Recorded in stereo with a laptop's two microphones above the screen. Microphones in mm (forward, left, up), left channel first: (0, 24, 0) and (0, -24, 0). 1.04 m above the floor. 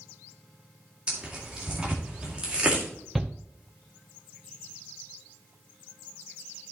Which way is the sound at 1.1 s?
25° right (ahead or behind).